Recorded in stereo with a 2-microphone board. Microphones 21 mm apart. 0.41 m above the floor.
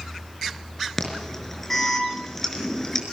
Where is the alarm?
15° left (ahead or behind), 4.5 m.